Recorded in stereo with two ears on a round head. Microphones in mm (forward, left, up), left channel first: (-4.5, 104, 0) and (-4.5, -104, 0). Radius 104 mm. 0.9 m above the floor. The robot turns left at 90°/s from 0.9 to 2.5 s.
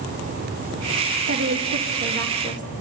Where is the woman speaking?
50° right, 1.2 m; by 2.7 s 160° right, 1.2 m.